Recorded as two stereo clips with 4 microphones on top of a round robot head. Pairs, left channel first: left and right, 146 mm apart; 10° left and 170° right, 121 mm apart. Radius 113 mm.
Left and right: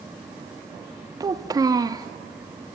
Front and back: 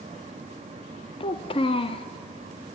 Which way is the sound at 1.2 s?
25° right.